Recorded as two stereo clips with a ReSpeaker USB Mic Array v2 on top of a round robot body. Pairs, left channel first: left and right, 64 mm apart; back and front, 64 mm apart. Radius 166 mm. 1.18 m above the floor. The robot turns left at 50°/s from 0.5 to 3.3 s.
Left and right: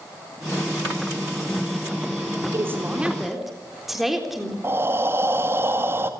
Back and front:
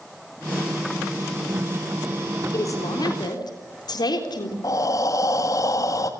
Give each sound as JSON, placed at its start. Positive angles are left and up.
{"t": 2.5, "sound": "a woman speaking", "azimuth_deg": -140, "distance_m": 3.5}
{"t": 4.6, "sound": "breathing", "azimuth_deg": -145, "distance_m": 1.7}